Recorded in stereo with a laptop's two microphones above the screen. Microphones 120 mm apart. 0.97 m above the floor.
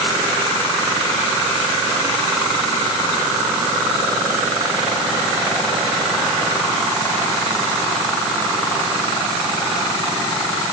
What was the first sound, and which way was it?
Only background noise.